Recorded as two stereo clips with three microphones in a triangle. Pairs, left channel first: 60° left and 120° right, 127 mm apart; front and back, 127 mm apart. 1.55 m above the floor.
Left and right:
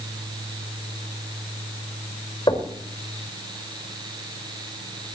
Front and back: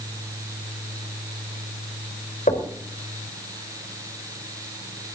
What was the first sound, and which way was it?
Knocking, 5° left.